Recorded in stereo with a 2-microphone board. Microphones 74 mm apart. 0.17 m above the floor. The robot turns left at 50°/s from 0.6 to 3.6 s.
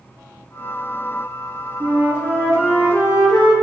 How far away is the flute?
About 3.5 m.